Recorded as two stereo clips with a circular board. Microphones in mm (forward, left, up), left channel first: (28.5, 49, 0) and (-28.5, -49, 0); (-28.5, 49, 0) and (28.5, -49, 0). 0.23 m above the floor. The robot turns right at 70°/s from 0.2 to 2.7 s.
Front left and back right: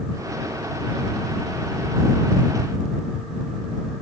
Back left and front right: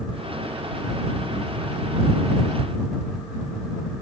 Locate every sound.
Only background noise.